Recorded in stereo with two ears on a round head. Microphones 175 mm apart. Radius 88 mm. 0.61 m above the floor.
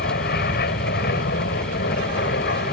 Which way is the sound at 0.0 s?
55° left (ahead or behind).